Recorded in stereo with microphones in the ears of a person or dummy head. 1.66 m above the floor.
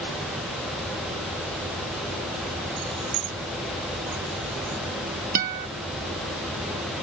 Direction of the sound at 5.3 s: 50° right (ahead or behind).